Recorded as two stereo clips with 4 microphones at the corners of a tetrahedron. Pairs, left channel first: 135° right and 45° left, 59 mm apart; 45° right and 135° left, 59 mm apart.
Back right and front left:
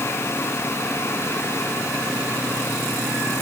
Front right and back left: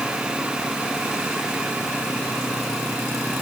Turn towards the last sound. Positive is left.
No sound to turn to.